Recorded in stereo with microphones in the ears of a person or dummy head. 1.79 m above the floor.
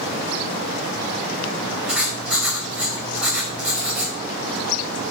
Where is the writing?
10° right (ahead or behind), 4 m.